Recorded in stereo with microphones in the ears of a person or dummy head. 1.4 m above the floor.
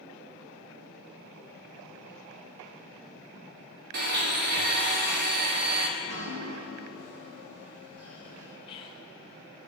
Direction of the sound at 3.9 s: 60° right (ahead or behind).